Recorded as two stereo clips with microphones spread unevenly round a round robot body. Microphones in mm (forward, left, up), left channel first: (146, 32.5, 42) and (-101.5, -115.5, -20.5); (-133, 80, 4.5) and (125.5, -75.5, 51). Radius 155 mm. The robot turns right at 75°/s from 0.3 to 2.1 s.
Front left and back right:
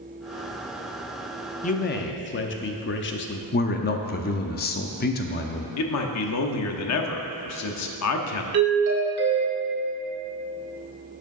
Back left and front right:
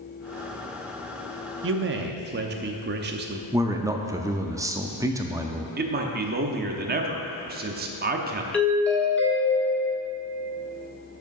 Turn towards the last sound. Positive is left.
turn(degrees=-135)